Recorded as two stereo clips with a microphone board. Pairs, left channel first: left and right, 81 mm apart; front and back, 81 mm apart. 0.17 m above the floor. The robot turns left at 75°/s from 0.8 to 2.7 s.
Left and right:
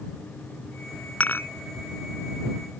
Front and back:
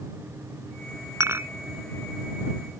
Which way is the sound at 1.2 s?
150° left.